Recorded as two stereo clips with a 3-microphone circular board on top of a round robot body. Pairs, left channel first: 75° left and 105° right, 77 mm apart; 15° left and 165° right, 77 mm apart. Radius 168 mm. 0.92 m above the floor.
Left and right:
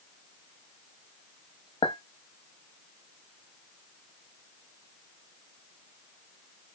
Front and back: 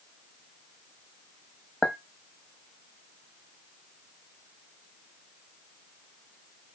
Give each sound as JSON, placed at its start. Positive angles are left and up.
{"t": 1.8, "sound": "a clink", "azimuth_deg": 100, "distance_m": 0.6}